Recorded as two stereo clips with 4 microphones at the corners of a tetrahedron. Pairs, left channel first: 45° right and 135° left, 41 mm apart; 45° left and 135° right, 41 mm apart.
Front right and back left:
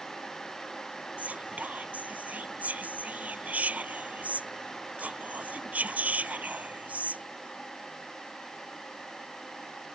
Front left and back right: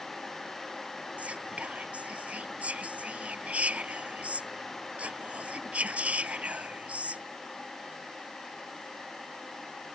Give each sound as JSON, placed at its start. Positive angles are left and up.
{"t": 1.2, "sound": "whispering", "azimuth_deg": 180}